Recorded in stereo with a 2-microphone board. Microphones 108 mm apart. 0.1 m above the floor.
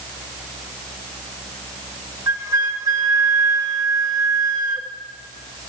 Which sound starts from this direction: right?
A flute, at 2.3 s.